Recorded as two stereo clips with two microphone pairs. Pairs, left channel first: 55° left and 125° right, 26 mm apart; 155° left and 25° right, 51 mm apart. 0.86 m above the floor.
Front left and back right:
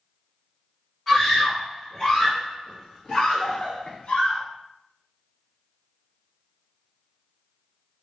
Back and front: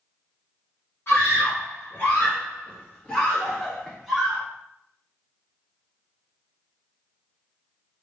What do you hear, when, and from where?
1.1 s a scream: 145° left, 1.6 m; by 4.4 s 50° left, 1.3 m